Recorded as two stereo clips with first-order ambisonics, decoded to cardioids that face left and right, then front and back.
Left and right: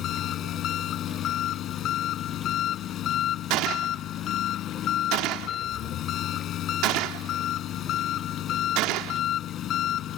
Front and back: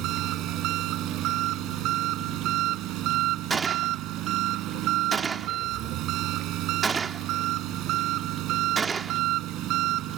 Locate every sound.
0.0 s an engine running: 140° left
3.5 s a gunshot: 110° right